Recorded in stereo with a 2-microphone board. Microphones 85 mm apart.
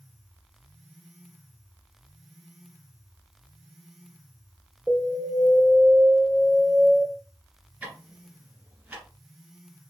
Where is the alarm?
Centre (ahead or behind), 1.9 m.